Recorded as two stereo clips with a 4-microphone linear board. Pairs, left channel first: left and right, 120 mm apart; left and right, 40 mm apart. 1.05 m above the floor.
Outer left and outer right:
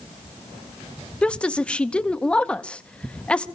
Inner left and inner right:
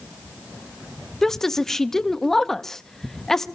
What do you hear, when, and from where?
1.2 s a woman speaking: 10° left (ahead or behind), 0.9 m